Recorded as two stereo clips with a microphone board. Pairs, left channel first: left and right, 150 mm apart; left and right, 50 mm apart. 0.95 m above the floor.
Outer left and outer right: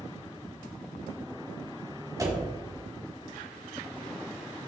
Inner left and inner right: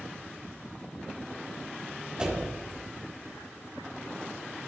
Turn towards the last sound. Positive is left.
turn(degrees=-25)  # may be behind; listen again after turning